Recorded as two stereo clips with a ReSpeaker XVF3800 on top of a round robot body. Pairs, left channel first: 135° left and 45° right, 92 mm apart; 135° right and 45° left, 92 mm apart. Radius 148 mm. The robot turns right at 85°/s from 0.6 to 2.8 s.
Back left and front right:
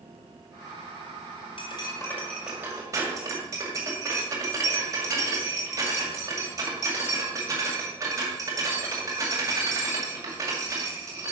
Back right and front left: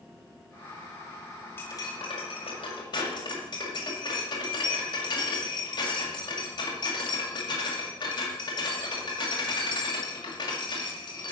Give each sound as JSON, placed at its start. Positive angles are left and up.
{"t": 1.6, "sound": "cutlery clinking", "azimuth_deg": 155, "distance_m": 2.0}